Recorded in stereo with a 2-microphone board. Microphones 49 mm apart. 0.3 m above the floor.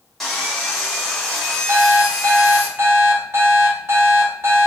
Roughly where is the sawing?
Centre.